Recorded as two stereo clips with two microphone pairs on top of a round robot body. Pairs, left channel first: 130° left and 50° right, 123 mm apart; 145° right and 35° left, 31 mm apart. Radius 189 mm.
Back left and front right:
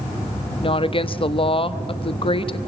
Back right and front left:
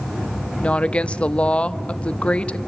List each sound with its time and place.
0.6 s a woman speaking: 175° left, 1.4 m